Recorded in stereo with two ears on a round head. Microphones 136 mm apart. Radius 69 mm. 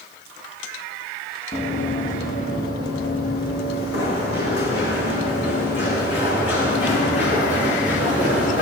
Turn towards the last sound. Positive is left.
turn(degrees=80)